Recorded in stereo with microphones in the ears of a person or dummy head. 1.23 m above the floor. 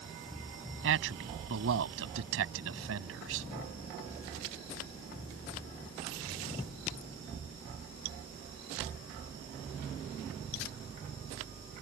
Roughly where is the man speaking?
Right.